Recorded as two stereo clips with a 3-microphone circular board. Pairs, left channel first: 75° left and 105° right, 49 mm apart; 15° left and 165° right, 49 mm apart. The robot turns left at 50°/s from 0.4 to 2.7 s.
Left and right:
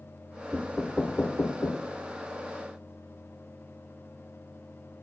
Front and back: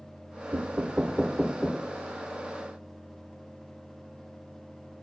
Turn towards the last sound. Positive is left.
turn(degrees=35)